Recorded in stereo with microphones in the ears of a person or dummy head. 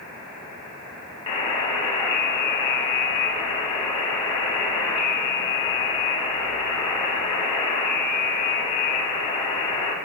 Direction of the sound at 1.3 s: 30° left (ahead or behind).